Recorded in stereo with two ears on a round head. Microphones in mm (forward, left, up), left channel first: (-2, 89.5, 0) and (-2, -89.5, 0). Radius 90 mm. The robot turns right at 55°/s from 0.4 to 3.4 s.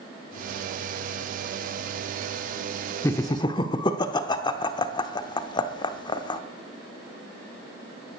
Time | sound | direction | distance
3.0 | laughter | 10° left (ahead or behind) | 0.9 m